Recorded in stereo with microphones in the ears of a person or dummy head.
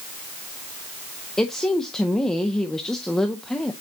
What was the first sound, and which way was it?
A woman speaking, 5° left (ahead or behind).